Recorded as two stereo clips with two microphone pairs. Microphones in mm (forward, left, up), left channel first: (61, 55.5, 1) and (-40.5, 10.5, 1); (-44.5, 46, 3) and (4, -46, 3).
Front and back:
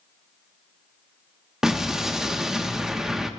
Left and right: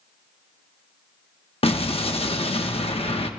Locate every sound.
1.6 s an explosion: 120° left, 1.0 m